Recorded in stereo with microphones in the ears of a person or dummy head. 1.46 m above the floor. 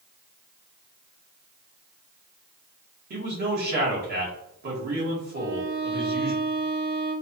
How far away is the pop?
No pop in this recording.